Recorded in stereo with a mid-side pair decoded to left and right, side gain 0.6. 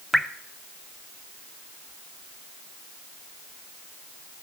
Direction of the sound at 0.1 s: Straight ahead.